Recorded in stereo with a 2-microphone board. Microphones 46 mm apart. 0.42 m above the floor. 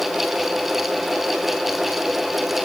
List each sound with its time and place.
Only background noise.